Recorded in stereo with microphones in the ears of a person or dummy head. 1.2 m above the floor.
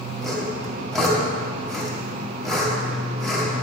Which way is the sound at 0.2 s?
5° left (ahead or behind).